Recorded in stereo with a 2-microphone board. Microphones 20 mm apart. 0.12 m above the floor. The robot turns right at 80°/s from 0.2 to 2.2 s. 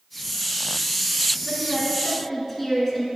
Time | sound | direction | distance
1.4 | a woman speaking | 15° right (ahead or behind) | 1.1 m